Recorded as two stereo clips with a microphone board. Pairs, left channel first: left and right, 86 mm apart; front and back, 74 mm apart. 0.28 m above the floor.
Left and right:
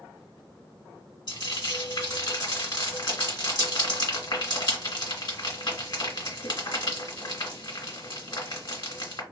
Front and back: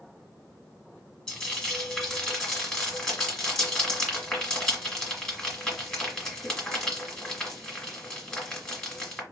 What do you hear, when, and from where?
1.3 s frying: 75° left, 1.4 m